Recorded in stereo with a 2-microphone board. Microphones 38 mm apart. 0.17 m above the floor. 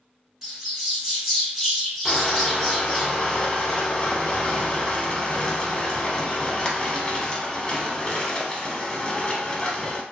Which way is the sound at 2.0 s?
25° left (ahead or behind).